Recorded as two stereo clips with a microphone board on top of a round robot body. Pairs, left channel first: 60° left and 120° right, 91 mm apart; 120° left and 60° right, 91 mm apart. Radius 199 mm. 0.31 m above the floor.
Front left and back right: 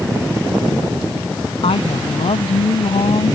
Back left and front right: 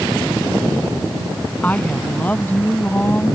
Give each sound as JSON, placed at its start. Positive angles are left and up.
{"t": 1.6, "sound": "a woman speaking", "azimuth_deg": 45}